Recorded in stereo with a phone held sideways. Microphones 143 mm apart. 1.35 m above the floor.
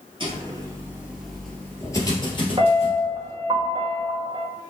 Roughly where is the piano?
Right.